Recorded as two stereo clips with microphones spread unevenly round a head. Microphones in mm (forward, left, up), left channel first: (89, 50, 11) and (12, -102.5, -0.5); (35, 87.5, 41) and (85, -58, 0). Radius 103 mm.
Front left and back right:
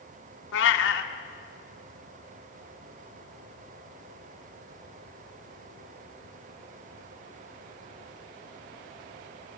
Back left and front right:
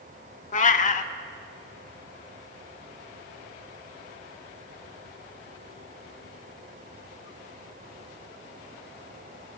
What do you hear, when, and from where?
0.5 s a cat meowing: 75° left, 0.6 m